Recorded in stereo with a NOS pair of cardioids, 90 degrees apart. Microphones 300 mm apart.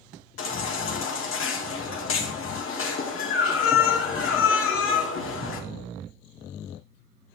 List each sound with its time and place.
0.4 s a baby crying: 50° left, 1.6 m